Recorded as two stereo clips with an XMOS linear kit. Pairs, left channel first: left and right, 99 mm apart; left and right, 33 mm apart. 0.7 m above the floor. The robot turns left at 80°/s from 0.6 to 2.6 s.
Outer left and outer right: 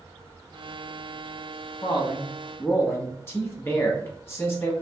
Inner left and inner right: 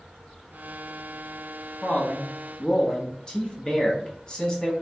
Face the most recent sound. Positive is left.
turn(degrees=30)